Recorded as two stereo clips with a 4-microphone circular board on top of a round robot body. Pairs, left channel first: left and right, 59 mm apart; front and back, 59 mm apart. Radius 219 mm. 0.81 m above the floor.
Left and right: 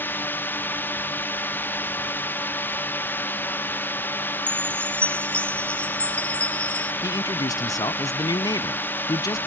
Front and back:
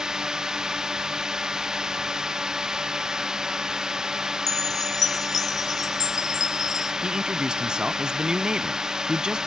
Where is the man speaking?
105° left.